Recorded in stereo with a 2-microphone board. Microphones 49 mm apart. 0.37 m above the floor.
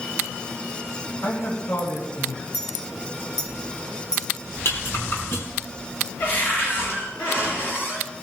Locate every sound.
1.2 s a man speaking: 70° left (ahead or behind), 4 m
2.5 s a clink: 65° left (ahead or behind), 2.5 m
4.7 s a rattle: 55° left (ahead or behind), 4 m
6.2 s a cupboard door: 45° left (ahead or behind), 6 m